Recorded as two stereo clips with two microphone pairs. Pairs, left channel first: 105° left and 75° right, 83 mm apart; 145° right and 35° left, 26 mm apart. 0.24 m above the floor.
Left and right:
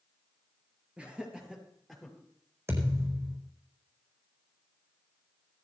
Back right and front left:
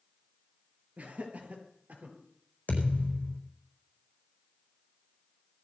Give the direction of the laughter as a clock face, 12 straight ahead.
12 o'clock.